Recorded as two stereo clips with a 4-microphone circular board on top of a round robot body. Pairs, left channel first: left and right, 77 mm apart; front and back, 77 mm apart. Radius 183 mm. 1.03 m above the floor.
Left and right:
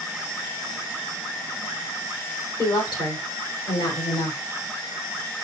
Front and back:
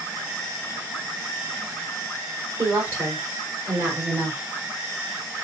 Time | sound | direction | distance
2.6 | a woman speaking | 115° left | 4 m